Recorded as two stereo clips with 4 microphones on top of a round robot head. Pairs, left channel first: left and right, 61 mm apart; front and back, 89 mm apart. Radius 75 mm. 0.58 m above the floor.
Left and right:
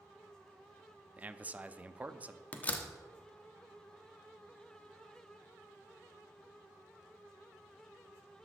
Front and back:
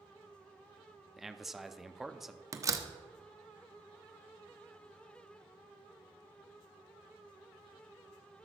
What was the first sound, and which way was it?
A man speaking, 95° right.